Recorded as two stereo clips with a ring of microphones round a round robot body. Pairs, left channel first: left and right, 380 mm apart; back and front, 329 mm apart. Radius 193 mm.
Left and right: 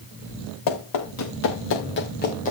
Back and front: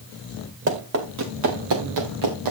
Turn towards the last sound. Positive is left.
turn(degrees=20)